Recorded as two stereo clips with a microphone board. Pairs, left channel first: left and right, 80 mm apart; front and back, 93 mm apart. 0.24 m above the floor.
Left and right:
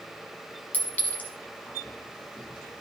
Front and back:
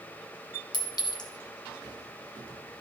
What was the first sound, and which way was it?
A clink, 25° left.